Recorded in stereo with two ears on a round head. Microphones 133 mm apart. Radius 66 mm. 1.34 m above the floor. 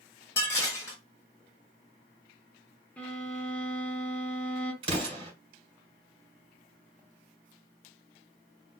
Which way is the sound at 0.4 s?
20° left (ahead or behind).